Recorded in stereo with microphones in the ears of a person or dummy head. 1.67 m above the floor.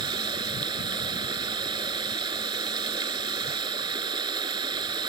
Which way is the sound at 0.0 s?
30° right (ahead or behind).